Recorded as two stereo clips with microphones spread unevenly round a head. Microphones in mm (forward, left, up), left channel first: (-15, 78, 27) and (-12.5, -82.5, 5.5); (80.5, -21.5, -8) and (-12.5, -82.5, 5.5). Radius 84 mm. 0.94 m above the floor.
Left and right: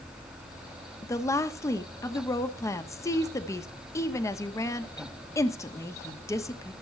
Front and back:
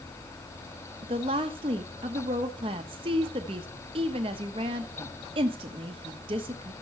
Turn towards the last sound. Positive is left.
turn(degrees=165)